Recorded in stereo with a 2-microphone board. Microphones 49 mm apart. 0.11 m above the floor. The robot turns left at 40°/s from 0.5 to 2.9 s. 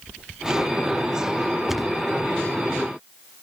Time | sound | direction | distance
1.7 | a thud | 5° right (ahead or behind) | ?